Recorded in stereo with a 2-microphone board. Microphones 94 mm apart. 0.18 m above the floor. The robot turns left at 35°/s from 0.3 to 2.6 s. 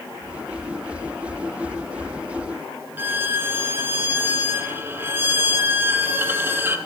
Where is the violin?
25° right (ahead or behind), 1.1 m.